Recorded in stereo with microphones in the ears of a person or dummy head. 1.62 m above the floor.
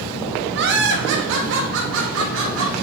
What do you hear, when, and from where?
0.6 s laughter: 55° right (ahead or behind), 1.5 m; by 2.7 s 70° right (ahead or behind), 3.5 m